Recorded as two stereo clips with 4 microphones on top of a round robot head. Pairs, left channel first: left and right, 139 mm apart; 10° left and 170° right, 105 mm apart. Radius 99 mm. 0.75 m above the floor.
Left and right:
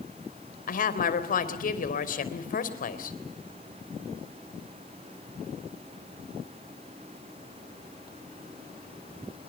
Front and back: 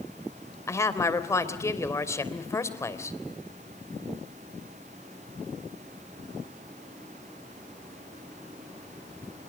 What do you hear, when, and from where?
0.7 s a woman speaking: 70° left, 3.5 m